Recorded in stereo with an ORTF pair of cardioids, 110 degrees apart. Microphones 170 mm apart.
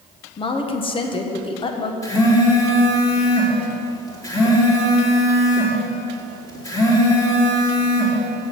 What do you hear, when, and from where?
0.4 s a woman speaking: 30° left, 1.3 m
2.0 s a phone buzzing: 20° left, 3 m